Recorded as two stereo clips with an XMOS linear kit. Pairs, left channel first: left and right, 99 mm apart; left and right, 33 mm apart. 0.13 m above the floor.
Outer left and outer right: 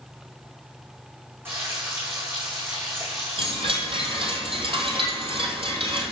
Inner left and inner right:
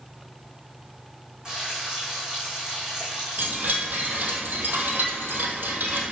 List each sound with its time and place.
1.4 s frying: 25° right (ahead or behind), 5.5 m
3.4 s a chime: 60° right (ahead or behind), 2.5 m